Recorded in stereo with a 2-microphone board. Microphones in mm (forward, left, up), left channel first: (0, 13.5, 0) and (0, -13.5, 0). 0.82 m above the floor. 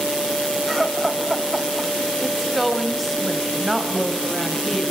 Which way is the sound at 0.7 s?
10° right (ahead or behind).